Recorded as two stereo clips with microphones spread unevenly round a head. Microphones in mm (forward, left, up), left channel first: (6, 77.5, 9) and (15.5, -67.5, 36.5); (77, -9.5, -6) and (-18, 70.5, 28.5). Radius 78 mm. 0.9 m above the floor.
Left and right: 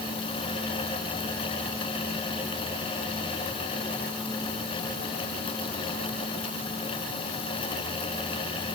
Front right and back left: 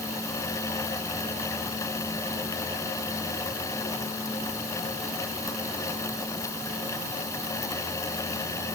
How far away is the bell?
No bell in this recording.